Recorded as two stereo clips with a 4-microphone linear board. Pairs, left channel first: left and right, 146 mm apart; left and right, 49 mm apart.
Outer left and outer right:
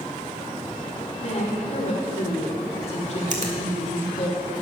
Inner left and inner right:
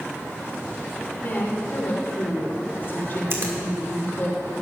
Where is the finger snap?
55° right (ahead or behind), 1.6 m.